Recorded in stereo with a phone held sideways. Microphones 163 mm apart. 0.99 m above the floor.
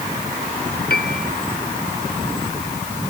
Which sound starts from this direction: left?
A piano, at 0.9 s.